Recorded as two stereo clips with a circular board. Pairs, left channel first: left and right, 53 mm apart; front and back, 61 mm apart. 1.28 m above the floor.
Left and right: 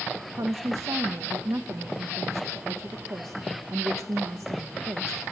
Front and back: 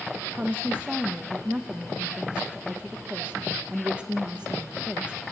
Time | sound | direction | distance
0.3 | a woman speaking | 110° right | 1.0 m